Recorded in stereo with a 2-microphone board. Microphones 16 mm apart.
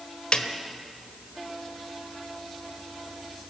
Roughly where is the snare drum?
Left.